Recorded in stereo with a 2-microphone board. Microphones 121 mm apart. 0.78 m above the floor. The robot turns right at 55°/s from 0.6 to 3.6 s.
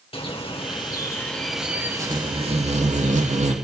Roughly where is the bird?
Behind left.